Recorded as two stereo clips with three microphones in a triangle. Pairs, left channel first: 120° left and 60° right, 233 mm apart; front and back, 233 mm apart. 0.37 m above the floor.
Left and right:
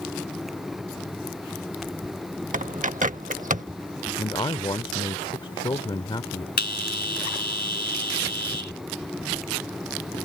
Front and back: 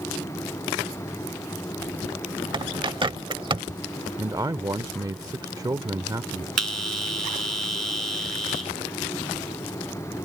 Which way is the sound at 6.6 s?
170° left.